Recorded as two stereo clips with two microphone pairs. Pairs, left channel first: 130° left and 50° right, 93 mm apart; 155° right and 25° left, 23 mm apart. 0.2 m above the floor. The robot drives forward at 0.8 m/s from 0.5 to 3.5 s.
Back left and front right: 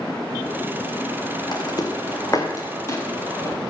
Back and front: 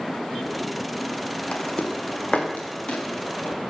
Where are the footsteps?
175° left, 2.5 m; by 3.6 s 170° right, 4.5 m.